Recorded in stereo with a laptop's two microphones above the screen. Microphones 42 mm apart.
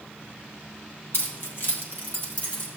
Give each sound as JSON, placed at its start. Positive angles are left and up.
{"t": 1.1, "sound": "keys jangling", "side_deg": 65, "distance_m": 1.1}